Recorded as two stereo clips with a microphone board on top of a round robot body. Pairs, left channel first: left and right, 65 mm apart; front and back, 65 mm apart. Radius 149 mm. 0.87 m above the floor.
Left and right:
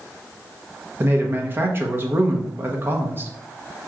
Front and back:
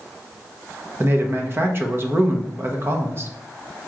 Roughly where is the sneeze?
No sneeze in this recording.